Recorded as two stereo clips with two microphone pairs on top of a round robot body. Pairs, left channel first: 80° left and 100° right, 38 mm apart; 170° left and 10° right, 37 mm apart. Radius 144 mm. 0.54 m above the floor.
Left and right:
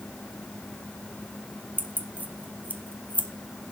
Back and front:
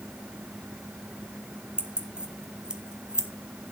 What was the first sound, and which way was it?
Keys jangling, 60° right.